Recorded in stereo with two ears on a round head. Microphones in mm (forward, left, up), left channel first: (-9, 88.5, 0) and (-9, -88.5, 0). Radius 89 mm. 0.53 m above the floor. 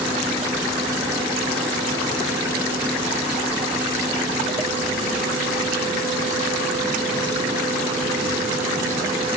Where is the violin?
No violin in this recording.